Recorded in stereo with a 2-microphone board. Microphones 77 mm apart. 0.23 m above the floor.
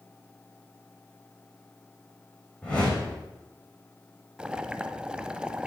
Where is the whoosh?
15° left (ahead or behind), 5 m.